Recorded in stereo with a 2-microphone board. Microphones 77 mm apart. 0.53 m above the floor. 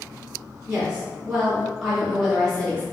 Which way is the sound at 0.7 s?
15° right (ahead or behind).